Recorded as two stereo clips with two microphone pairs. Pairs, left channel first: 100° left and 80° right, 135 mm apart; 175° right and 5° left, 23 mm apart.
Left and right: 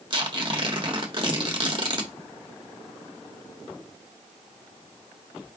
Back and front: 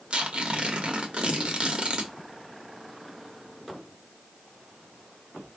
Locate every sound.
0.1 s tearing paper: 30° right, 1.3 m